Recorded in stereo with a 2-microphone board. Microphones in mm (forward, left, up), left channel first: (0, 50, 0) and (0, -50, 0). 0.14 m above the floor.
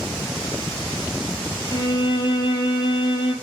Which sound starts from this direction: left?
A violin, at 1.7 s.